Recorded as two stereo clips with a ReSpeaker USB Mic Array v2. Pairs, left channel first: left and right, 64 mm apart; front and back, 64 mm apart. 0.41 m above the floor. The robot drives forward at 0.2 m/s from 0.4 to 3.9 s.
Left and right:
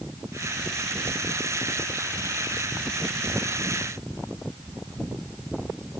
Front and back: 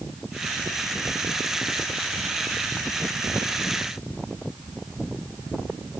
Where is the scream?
No scream in this recording.